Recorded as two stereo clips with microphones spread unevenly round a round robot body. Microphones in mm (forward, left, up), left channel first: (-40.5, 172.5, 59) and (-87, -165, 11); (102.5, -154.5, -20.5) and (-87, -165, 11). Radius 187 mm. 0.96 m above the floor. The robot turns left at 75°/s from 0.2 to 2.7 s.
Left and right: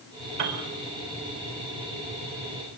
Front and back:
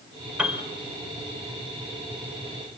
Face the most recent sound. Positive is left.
turn(degrees=95)